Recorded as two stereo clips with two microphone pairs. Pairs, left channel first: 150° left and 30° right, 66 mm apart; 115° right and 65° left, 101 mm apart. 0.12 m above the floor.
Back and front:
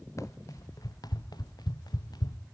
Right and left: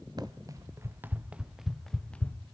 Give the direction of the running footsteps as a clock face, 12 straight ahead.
8 o'clock.